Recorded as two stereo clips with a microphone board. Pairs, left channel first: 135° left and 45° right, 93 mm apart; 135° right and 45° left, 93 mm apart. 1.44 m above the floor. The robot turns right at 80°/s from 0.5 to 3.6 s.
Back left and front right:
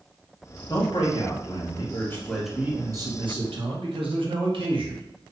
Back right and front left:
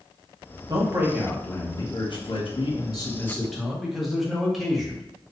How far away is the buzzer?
I don't hear a buzzer.